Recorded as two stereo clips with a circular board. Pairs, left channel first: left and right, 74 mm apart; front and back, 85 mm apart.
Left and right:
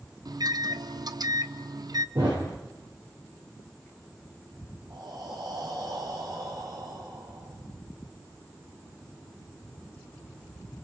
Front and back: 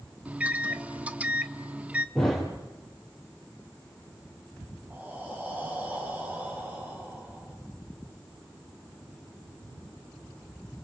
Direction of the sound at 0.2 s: 110° right.